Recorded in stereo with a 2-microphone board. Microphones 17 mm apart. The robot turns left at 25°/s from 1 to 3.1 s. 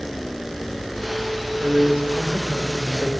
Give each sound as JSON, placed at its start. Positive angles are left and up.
{"t": 1.6, "sound": "a man speaking", "azimuth_deg": -90, "distance_m": 1.5}